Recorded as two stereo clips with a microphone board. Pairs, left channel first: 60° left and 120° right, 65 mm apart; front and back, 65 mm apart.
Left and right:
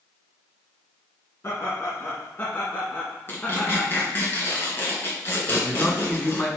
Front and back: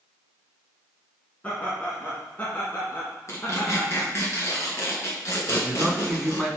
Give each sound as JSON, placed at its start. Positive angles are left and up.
{"t": 1.4, "sound": "laughter", "azimuth_deg": 55, "distance_m": 2.0}
{"t": 3.3, "sound": "tearing paper", "azimuth_deg": 20, "distance_m": 2.5}
{"t": 5.5, "sound": "a man speaking", "azimuth_deg": 85, "distance_m": 1.9}